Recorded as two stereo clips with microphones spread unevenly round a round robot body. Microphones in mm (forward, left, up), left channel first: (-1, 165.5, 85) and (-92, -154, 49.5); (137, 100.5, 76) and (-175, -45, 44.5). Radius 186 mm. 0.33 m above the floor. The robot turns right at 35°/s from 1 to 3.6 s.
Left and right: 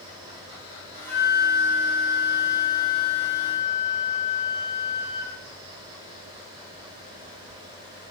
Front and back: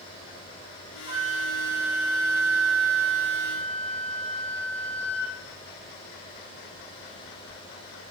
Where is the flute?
150° right, 2.5 m; by 5.3 s 60° right, 2.5 m.